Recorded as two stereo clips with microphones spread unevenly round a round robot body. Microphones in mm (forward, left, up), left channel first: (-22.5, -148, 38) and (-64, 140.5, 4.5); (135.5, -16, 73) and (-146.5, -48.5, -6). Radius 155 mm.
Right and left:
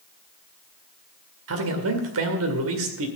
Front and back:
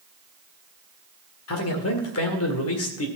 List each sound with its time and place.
1.5 s a man speaking: 55° left, 2 m